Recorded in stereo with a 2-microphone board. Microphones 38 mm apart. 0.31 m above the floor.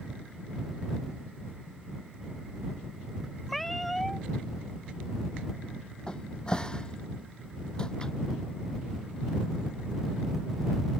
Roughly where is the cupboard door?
Left.